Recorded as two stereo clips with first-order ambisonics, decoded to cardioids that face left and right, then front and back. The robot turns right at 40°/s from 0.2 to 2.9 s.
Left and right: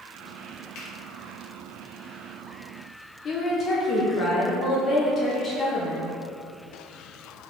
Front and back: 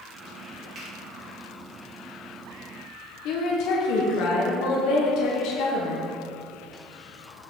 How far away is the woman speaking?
About 1.1 m.